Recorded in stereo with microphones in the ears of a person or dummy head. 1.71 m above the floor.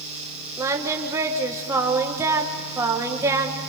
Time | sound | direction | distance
0.6 | singing | 25° right (ahead or behind) | 1.6 m